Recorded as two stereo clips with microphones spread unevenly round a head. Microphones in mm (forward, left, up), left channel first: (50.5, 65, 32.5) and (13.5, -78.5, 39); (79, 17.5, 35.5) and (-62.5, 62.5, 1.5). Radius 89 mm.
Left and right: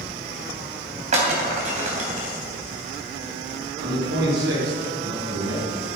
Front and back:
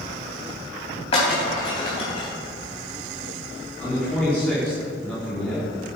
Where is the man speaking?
100° right, 4.5 m.